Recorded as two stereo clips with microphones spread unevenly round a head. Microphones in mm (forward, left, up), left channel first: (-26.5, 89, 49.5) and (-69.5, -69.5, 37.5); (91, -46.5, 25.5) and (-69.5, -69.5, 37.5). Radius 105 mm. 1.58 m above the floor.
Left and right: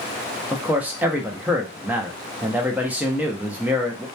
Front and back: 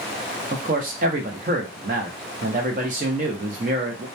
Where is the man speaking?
175° left, 0.5 m.